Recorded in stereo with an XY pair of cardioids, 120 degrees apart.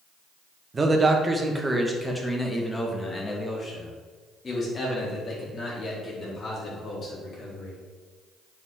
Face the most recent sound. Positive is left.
turn(degrees=45)